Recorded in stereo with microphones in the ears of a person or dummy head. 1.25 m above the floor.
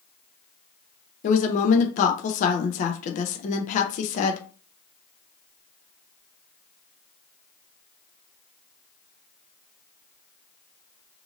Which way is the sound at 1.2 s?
40° left (ahead or behind).